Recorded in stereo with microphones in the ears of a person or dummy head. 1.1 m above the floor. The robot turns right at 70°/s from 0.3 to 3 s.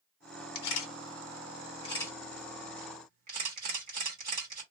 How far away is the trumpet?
I don't hear a trumpet.